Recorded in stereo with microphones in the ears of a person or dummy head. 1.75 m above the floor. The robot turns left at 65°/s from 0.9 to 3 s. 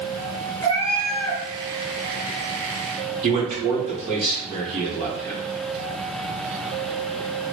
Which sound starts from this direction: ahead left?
A cat meowing, at 0.6 s.